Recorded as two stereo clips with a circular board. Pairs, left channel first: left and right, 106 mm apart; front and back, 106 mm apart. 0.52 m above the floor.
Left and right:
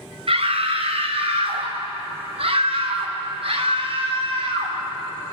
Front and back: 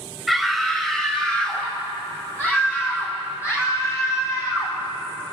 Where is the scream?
90° right, 3.5 m; by 4.8 s 60° right, 5 m.